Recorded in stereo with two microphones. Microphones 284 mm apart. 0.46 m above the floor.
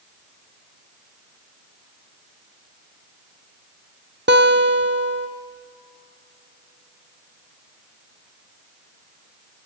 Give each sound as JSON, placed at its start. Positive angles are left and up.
{"t": 4.3, "sound": "a guitar", "side_deg": -40, "distance_m": 1.0}